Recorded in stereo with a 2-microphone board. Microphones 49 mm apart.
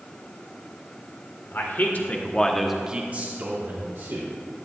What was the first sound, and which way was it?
A man speaking, 55° left (ahead or behind).